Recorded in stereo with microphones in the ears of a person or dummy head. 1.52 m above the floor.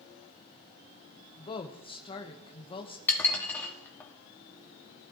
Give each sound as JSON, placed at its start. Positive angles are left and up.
{"t": 1.4, "sound": "a woman speaking", "side_deg": 25, "distance_m": 1.0}
{"t": 3.1, "sound": "dishes clattering", "side_deg": 10, "distance_m": 1.7}